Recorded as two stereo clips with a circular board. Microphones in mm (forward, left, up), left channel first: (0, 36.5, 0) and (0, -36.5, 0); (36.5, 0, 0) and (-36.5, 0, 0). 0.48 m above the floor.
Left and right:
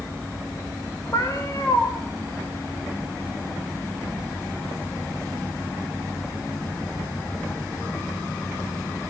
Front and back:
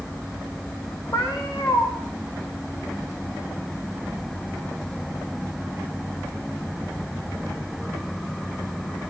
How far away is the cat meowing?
About 5 m.